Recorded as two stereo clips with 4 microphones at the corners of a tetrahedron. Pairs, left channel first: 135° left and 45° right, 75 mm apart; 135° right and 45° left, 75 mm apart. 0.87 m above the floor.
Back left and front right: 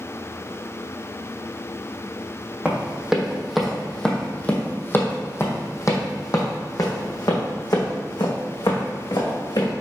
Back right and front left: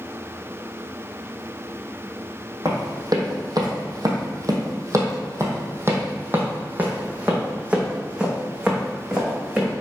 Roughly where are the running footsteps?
Ahead left.